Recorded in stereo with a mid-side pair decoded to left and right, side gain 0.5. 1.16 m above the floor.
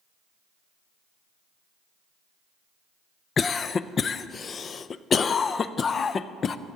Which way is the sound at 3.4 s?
40° left.